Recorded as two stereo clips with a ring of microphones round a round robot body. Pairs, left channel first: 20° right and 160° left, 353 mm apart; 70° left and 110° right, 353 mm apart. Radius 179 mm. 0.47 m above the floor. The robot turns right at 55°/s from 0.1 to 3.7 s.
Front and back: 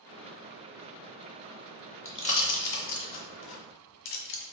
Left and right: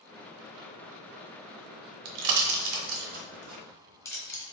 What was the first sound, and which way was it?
A pop, 105° right.